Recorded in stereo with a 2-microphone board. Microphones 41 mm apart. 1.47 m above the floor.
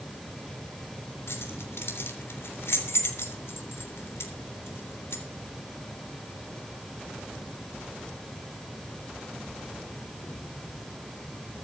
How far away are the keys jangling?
About 3.5 m.